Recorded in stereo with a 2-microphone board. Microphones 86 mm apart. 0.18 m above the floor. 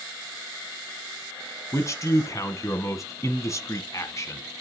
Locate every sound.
1.7 s a man speaking: 35° left (ahead or behind), 1.2 m